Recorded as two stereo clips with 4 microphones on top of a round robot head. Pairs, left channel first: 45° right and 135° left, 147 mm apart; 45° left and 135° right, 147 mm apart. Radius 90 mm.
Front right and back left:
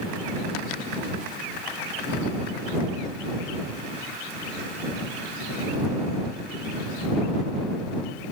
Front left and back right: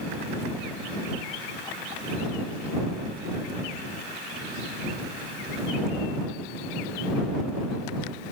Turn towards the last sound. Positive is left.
No sound to turn to.